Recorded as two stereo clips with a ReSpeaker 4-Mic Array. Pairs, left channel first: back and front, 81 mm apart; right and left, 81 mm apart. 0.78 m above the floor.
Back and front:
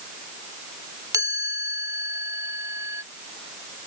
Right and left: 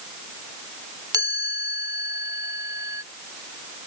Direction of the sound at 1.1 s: 45° left.